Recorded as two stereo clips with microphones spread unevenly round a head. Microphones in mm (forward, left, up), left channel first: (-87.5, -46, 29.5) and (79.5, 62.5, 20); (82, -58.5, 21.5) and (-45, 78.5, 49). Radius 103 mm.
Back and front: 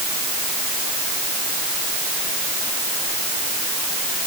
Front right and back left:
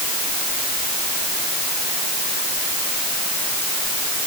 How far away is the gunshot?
I don't hear a gunshot.